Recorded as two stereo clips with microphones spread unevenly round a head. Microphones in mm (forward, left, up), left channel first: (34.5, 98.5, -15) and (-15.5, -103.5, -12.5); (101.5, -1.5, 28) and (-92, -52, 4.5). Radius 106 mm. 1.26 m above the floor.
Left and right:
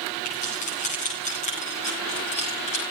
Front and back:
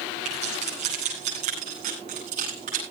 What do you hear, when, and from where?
0.2 s keys jangling: 135° left, 9 m